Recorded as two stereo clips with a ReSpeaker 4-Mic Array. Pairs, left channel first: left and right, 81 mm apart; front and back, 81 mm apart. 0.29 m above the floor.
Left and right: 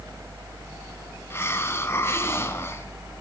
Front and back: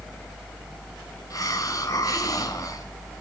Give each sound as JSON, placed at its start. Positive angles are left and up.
{"t": 1.3, "sound": "a hiss", "azimuth_deg": 35, "distance_m": 2.5}